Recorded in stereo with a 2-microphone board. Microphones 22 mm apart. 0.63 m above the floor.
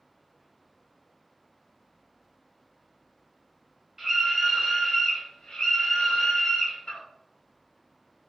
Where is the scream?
25° right (ahead or behind), 0.7 m; by 7.0 s 60° left (ahead or behind), 1.4 m.